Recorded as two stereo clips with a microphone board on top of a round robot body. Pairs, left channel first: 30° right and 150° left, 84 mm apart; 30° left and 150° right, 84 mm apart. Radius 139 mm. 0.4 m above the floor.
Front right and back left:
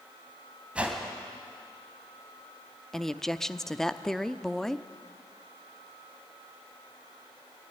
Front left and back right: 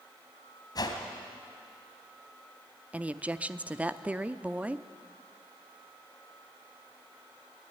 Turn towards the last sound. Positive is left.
turn(degrees=-110)